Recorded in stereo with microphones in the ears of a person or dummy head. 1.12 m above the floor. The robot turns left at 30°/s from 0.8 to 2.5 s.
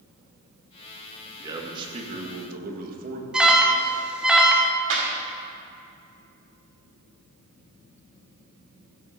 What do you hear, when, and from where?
1.4 s a man speaking: 20° right, 1.7 m; by 3.2 s 55° right, 1.7 m
3.3 s an alarm: 5° right (ahead or behind), 0.7 m
4.9 s a clap: 75° right (ahead or behind), 2.5 m